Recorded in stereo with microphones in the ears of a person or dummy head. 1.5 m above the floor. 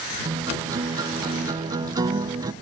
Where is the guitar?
20° right (ahead or behind).